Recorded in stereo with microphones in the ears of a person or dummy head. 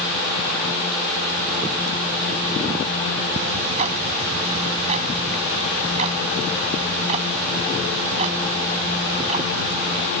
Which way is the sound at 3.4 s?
35° right (ahead or behind).